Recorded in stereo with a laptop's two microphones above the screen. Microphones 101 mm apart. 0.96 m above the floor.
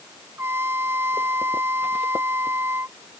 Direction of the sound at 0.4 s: 25° right (ahead or behind).